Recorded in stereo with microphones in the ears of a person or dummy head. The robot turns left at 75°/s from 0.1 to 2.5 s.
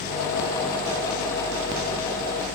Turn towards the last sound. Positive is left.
No sound to turn to.